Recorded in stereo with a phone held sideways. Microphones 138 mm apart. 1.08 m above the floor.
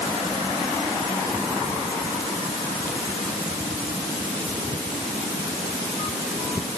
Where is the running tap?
No running tap in this recording.